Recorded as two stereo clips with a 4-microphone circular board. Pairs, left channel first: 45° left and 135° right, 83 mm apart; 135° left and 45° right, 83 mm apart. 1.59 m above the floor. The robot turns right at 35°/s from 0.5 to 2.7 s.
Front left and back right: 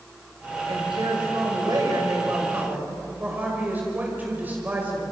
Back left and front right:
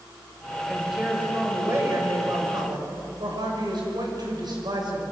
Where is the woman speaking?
135° right, 5.5 m; by 5.0 s 65° right, 5.5 m.